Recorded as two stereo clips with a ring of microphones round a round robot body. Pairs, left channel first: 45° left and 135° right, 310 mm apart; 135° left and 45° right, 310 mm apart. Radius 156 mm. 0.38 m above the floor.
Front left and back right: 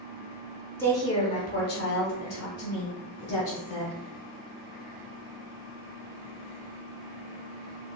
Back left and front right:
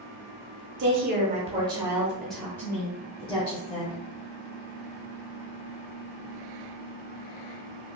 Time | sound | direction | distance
0.8 | a woman speaking | 30° right | 0.9 m